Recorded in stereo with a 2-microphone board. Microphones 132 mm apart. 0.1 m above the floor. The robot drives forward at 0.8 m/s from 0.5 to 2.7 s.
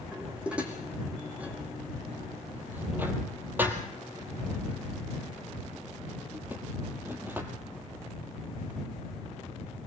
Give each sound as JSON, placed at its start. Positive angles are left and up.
{"t": 0.1, "sound": "dishes clattering", "side_deg": -10, "distance_m": 4.0}